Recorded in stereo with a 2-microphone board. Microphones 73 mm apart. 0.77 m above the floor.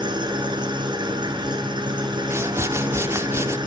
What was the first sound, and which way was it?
An engine running, 75° right (ahead or behind).